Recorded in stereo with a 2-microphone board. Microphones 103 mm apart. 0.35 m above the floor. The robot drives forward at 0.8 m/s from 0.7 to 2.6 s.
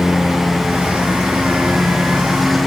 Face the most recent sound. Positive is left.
turn(degrees=0)  # may be behind; listen again after turning